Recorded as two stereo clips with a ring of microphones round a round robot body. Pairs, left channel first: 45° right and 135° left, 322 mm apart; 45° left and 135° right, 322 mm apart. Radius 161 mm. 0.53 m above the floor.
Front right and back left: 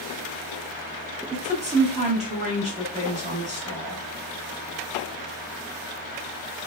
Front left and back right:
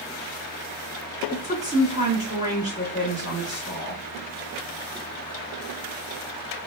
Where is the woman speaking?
165° left, 1.0 m.